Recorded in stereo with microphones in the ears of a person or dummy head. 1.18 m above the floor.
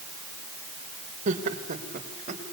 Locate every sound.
1.3 s laughter: 45° right (ahead or behind), 4.5 m